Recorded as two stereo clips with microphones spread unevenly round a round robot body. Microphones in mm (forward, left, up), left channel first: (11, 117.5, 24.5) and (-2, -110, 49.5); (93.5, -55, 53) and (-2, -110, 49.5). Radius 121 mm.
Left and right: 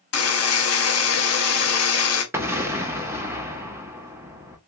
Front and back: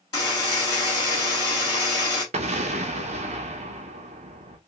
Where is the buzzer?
95° left, 1.3 m.